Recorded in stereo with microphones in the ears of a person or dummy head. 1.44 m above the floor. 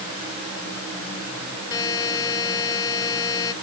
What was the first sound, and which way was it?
A buzzer, 20° left (ahead or behind).